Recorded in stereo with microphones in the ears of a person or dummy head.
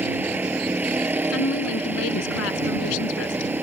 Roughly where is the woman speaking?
Left.